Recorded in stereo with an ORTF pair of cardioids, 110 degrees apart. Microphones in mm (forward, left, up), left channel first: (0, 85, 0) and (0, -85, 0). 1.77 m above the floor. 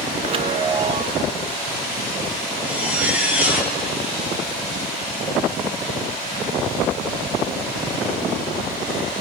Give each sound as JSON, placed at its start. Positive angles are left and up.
{"t": 0.2, "sound": "a chime", "azimuth_deg": -35, "distance_m": 0.9}
{"t": 2.6, "sound": "a zipper", "azimuth_deg": -10, "distance_m": 6.0}